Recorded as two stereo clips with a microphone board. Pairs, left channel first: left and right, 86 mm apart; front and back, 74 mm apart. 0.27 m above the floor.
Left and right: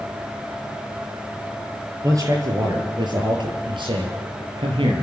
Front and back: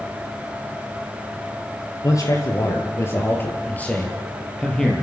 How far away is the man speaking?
About 5.5 m.